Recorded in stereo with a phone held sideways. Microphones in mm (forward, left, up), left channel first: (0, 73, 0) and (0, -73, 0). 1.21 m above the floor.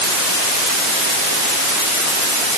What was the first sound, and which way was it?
Only background noise.